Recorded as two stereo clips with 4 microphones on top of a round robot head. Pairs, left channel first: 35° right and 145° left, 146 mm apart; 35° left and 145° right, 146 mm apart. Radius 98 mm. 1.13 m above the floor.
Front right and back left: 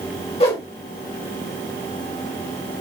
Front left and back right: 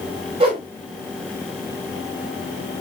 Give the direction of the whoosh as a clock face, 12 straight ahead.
3 o'clock.